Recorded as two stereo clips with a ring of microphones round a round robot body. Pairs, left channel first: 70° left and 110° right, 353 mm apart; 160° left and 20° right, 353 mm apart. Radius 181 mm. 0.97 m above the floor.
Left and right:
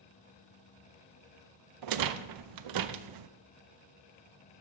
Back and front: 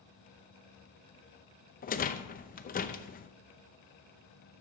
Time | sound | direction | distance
1.8 | a rattle | 135° right | 0.6 m